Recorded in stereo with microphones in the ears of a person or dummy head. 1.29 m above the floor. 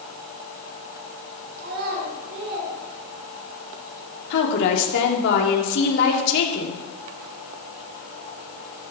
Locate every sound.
1.6 s a child speaking: 55° right (ahead or behind), 4.5 m
4.3 s a woman speaking: 70° left (ahead or behind), 3.5 m